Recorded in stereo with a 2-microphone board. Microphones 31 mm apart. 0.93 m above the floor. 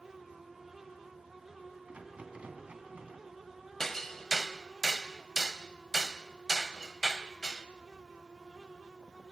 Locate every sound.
1.9 s a rattle: 45° right (ahead or behind), 3 m
3.8 s hammering: 10° left (ahead or behind), 1.2 m